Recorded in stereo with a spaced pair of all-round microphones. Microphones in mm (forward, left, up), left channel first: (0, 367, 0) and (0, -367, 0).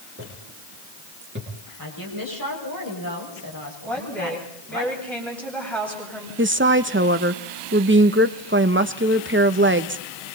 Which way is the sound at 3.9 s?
Centre (ahead or behind).